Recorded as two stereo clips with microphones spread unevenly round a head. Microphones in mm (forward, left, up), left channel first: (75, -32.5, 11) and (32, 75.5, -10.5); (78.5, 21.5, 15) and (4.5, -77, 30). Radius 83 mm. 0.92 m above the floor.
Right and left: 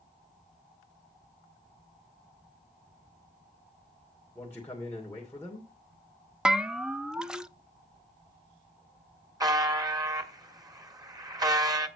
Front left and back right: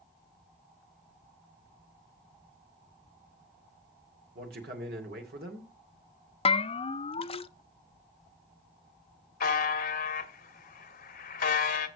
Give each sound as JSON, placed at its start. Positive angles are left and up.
{"t": 4.3, "sound": "a man speaking", "azimuth_deg": -150, "distance_m": 2.5}
{"t": 6.5, "sound": "a bell", "azimuth_deg": 40, "distance_m": 0.6}
{"t": 9.4, "sound": "a buzzer", "azimuth_deg": 50, "distance_m": 1.3}